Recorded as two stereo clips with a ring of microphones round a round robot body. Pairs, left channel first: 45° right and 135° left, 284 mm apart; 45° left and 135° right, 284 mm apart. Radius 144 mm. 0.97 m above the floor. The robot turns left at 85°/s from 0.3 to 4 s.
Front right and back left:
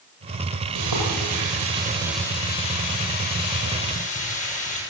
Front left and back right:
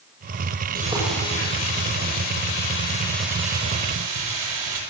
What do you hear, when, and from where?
0.8 s frying: 165° left, 8.5 m; by 4.8 s 110° right, 8.5 m